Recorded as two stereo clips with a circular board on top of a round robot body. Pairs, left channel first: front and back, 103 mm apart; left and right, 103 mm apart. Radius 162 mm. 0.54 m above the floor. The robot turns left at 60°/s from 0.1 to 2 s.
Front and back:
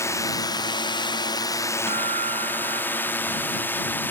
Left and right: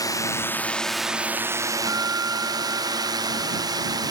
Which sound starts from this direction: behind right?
A guitar, at 1.9 s.